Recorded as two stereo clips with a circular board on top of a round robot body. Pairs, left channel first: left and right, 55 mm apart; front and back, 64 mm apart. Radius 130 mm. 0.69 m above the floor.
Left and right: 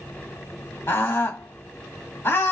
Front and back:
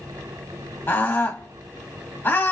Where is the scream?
55° left, 1.6 m.